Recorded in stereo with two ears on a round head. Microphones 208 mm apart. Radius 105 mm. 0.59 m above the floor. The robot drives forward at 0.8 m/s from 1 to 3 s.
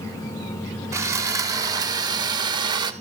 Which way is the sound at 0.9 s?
15° right (ahead or behind).